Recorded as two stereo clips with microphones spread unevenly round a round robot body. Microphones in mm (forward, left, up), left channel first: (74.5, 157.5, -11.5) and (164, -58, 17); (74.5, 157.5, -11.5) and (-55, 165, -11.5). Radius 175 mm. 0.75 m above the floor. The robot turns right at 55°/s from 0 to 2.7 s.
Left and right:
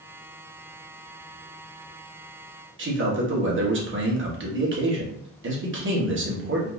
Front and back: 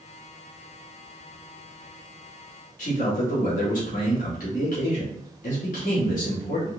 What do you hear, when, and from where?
2.8 s a man speaking: 30° right, 1.4 m